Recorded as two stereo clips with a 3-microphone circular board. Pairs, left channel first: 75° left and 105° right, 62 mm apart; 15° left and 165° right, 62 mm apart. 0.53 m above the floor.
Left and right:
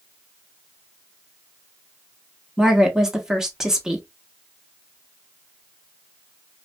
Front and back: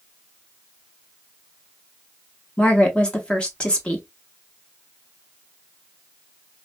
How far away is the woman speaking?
About 0.8 m.